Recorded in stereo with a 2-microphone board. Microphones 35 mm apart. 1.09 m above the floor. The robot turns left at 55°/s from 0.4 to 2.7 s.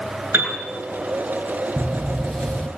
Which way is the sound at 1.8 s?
165° right.